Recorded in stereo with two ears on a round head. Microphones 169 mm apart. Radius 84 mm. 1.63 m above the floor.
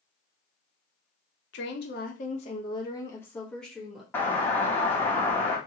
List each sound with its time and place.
1.5 s a woman speaking: 70° left (ahead or behind), 0.8 m; by 4.0 s centre (ahead or behind), 1.3 m
4.1 s a doorbell: 10° left (ahead or behind), 1.1 m